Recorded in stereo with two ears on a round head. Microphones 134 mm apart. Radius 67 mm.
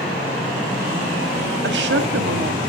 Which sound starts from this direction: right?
A woman speaking, at 1.6 s.